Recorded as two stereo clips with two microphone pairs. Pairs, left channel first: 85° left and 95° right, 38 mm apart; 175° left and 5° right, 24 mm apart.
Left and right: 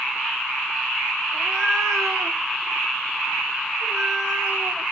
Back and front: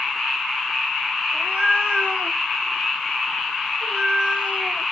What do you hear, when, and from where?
1.3 s a cat meowing: 10° left, 1.5 m; by 4.8 s 30° right, 3.5 m